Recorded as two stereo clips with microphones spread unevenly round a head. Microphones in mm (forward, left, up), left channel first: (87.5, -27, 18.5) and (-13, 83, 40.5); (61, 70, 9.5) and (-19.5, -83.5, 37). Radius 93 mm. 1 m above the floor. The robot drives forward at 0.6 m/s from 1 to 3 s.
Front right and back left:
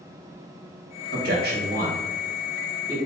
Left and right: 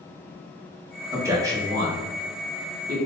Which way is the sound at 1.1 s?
165° left.